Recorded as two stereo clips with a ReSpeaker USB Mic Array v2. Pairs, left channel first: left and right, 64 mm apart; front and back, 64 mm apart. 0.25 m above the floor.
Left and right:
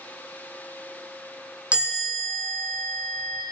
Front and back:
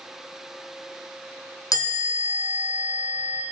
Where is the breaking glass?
I don't hear breaking glass.